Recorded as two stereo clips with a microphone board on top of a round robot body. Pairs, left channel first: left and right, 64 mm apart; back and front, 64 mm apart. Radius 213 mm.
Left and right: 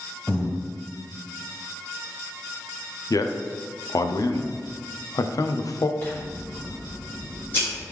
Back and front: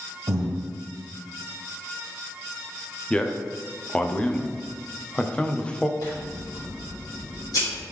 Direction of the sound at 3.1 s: 110° left.